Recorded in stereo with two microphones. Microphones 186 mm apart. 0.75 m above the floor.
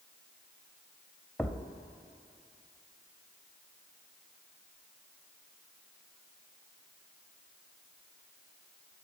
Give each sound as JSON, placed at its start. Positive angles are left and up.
{"t": 1.4, "sound": "a thud", "side_deg": 5, "distance_m": 0.5}